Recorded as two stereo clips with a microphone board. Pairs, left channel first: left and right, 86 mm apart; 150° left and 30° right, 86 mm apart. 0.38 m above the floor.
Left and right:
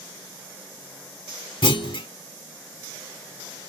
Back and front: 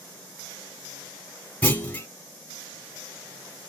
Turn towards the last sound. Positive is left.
turn(degrees=85)